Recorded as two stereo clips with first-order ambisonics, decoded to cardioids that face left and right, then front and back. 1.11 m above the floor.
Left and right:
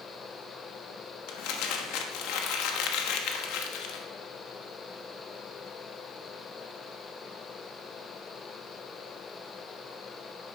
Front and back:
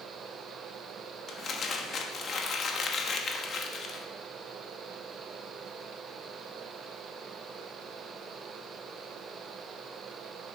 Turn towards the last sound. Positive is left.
turn(degrees=65)